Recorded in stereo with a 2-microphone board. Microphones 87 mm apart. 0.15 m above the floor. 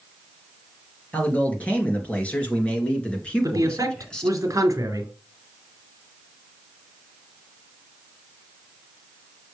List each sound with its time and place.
1.1 s a man speaking: 15° left (ahead or behind), 3 m; by 4.4 s 10° left (ahead or behind), 1.9 m
3.4 s a man speaking: 40° right (ahead or behind), 2 m